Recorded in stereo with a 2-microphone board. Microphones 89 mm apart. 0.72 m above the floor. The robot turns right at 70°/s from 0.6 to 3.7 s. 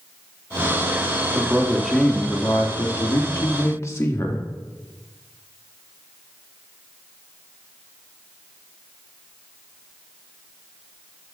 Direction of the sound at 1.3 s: 40° right.